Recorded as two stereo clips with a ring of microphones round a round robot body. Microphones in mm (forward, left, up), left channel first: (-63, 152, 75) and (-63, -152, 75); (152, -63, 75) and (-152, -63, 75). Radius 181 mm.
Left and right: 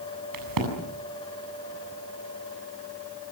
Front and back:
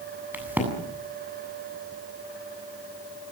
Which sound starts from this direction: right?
A crack, at 0.3 s.